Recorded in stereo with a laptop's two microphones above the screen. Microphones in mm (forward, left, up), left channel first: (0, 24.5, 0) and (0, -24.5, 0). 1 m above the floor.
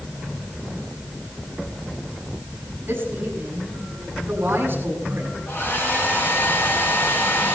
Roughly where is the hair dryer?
Left.